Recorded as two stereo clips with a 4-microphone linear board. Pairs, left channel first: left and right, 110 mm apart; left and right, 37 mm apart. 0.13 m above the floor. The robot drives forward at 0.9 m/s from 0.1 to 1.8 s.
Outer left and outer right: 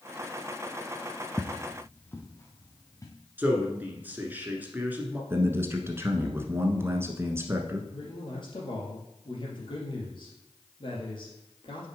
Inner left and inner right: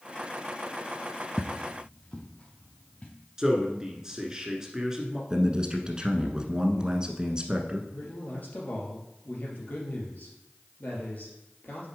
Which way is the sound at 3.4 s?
15° right (ahead or behind).